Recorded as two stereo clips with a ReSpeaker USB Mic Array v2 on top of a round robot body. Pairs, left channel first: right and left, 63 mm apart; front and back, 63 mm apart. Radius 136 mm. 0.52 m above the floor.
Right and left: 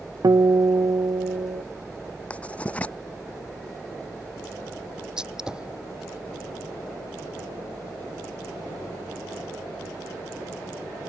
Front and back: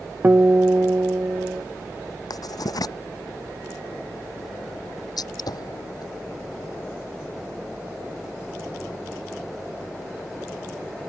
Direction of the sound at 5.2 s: 10° left.